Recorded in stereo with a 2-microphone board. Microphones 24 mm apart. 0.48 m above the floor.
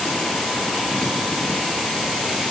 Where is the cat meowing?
I don't hear a cat meowing.